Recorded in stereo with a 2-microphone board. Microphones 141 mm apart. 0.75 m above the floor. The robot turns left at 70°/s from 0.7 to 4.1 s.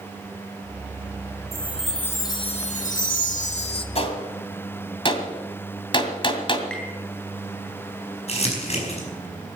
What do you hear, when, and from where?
1.5 s a chime: 155° right, 1.8 m; by 3.9 s 40° left, 1.8 m
4.0 s a gunshot: 45° left (ahead or behind), 2 m; by 6.6 s 35° left (ahead or behind), 2 m
6.7 s tapping: 10° left (ahead or behind), 7.5 m
8.3 s crumpling: 50° left (ahead or behind), 5 m